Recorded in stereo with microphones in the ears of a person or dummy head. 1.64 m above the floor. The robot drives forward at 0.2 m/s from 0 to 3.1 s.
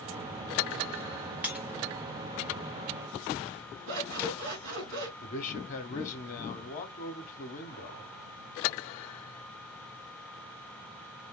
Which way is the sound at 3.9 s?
75° right (ahead or behind).